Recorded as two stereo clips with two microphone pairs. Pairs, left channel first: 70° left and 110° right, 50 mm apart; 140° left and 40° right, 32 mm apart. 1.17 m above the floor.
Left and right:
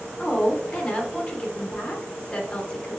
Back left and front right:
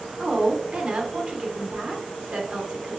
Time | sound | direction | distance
0.2 | a woman speaking | 5° left | 1.0 m